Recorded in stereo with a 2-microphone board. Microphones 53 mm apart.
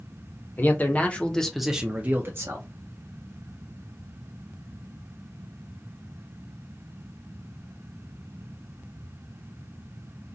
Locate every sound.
0.6 s a man speaking: 40° left (ahead or behind), 1.1 m; by 2.6 s 55° right (ahead or behind), 0.9 m